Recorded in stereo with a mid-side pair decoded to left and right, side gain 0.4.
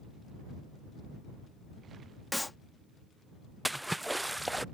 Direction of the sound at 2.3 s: 15° left.